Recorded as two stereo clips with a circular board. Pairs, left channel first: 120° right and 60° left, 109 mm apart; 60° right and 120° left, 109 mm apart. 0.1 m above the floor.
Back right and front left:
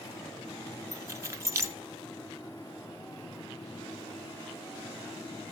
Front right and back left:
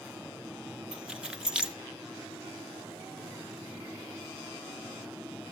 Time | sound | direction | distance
0.9 | keys jangling | 50° left | 0.8 m